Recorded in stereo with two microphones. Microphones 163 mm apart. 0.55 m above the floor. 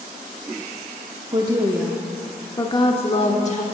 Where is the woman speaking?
30° right (ahead or behind), 0.7 m; by 3.6 s 45° left (ahead or behind), 1.3 m.